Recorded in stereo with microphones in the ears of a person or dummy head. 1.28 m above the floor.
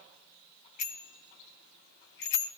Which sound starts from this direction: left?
A bicycle bell, at 0.8 s.